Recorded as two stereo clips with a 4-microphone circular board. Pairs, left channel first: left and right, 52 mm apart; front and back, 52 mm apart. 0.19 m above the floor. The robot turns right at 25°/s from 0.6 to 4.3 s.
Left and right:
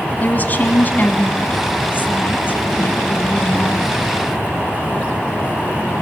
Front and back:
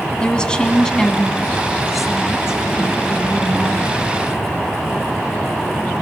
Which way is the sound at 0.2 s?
65° left.